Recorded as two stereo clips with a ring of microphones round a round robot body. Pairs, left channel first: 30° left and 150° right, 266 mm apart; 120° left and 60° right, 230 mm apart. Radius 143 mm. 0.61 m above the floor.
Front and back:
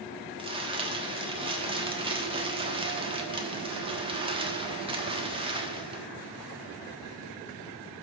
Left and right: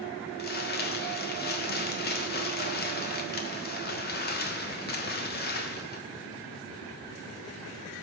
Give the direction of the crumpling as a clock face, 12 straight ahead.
7 o'clock.